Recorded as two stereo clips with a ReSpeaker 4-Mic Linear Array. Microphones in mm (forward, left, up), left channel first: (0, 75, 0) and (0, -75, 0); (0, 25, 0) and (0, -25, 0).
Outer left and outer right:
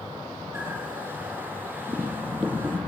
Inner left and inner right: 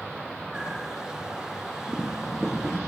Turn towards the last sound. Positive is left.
turn(degrees=-15)  # may be behind; listen again after turning